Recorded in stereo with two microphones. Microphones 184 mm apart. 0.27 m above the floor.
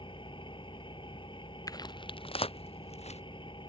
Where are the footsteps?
20° left (ahead or behind); by 3.2 s 35° left (ahead or behind).